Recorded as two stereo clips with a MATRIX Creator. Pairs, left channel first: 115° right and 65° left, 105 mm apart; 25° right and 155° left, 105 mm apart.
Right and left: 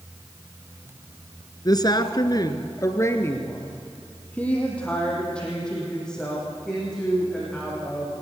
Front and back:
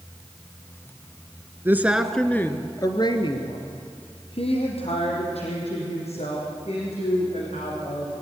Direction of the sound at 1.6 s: 145° right.